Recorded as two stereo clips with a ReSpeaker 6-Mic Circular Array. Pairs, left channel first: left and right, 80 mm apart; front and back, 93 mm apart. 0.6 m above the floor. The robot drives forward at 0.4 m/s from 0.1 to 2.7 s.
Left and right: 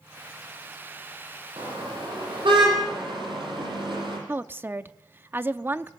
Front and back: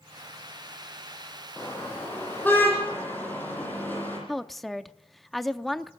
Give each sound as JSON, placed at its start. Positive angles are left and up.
{"t": 1.6, "sound": "a car horn", "azimuth_deg": -70, "distance_m": 10.0}
{"t": 4.3, "sound": "a woman speaking", "azimuth_deg": -85, "distance_m": 0.7}